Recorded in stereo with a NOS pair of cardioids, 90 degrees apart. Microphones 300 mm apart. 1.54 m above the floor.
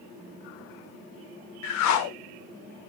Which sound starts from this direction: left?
A whoosh, at 1.6 s.